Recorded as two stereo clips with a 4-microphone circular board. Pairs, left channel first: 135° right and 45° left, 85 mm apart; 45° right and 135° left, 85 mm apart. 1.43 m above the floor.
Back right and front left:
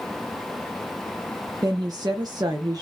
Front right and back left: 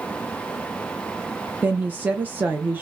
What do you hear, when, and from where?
1.6 s a woman speaking: 70° left, 0.5 m